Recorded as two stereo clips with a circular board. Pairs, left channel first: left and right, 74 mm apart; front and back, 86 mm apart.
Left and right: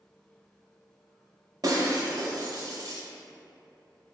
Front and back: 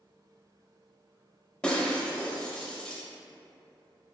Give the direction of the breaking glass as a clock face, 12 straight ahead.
3 o'clock.